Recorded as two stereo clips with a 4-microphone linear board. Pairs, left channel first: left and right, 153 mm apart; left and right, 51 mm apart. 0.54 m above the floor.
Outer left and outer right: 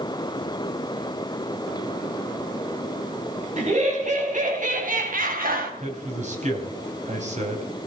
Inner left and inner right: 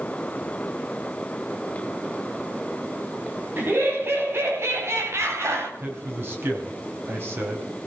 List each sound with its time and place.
3.6 s laughter: 50° right (ahead or behind), 4.5 m; by 5.7 s 70° right (ahead or behind), 3.5 m
5.8 s a man speaking: 50° right (ahead or behind), 4 m